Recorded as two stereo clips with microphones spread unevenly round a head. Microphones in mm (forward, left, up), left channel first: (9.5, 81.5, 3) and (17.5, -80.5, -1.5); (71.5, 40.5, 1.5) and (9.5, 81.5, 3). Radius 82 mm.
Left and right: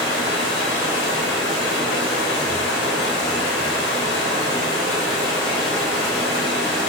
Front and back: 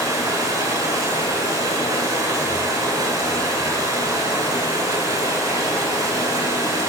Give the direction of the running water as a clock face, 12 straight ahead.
9 o'clock.